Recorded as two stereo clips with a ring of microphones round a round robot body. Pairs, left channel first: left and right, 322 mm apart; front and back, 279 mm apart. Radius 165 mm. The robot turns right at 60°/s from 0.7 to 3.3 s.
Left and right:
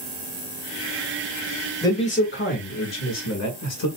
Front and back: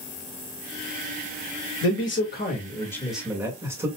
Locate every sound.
1.8 s a man speaking: 10° left, 2.0 m; by 3.9 s 100° left, 2.0 m